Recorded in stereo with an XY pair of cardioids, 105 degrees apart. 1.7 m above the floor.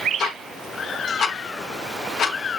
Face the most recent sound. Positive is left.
turn(degrees=70)